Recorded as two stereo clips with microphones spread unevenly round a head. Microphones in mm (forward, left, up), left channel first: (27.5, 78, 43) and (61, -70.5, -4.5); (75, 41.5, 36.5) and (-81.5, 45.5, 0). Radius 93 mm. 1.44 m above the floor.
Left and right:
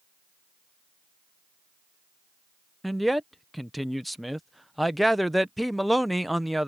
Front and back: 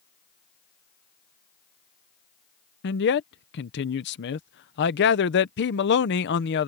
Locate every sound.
2.8 s a man speaking: 10° left